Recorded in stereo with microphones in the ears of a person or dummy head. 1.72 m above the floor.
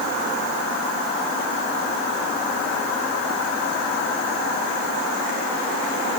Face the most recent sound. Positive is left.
No sound to turn to.